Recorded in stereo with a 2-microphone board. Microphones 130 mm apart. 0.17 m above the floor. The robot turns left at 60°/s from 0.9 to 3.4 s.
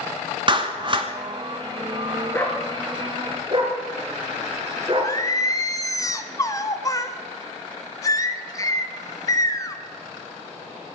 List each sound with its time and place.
0.5 s a clap: 40° right (ahead or behind), 1.5 m; by 1.1 s 45° right (ahead or behind), 1.5 m
2.3 s a dog barking: 25° left (ahead or behind), 4 m; by 5.2 s 40° right (ahead or behind), 4 m
5.0 s singing: 25° left (ahead or behind), 0.9 m